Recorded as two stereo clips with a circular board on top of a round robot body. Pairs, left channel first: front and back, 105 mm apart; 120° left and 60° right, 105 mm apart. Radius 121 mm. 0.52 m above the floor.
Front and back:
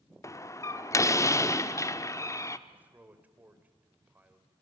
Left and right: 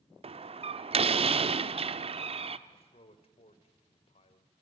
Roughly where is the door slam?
Ahead right.